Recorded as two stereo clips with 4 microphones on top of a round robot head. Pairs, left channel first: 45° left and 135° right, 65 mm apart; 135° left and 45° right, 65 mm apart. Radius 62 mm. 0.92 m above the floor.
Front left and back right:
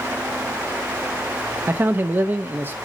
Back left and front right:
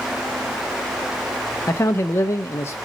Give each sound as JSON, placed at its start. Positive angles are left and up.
{"t": 1.7, "sound": "a man speaking", "azimuth_deg": 175, "distance_m": 0.7}